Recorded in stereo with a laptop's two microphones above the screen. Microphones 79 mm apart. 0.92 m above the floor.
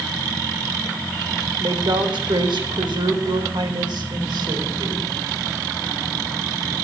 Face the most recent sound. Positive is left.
turn(degrees=-65)  # may be behind; listen again after turning